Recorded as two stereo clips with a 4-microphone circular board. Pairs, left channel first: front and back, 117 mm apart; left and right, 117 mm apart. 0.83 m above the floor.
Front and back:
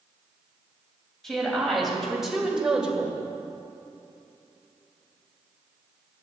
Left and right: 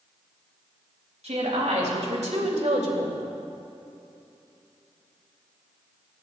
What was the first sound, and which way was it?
A woman speaking, 90° right.